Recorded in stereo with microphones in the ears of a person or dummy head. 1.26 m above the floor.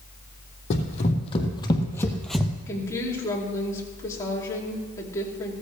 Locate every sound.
0.7 s running footsteps: 40° left (ahead or behind), 2.5 m; by 2.5 s 10° right (ahead or behind), 1.4 m
2.7 s a woman speaking: 15° left (ahead or behind), 2.5 m